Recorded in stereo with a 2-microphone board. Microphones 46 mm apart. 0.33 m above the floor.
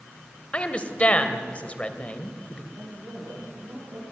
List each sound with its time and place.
0.5 s a woman speaking: 25° left (ahead or behind), 1.7 m
2.7 s a woman speaking: 60° right (ahead or behind), 8 m